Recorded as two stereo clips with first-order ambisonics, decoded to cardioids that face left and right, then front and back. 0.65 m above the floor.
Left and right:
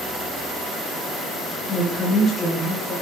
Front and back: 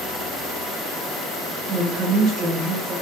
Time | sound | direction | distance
1.7 | a woman speaking | 160° left | 0.7 m